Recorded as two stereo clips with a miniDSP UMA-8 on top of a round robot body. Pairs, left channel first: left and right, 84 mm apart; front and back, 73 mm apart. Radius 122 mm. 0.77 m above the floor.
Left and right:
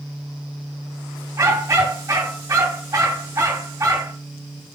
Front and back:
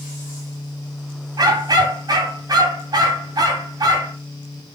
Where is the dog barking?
145° right, 2.5 m.